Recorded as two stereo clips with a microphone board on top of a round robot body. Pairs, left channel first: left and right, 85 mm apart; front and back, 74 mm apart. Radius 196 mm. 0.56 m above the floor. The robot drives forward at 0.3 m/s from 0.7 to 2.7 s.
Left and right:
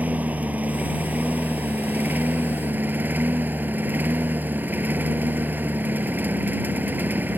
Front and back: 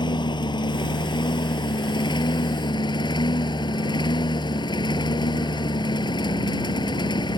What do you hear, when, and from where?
0.0 s a lawn mower: 15° right; by 7.4 s 20° right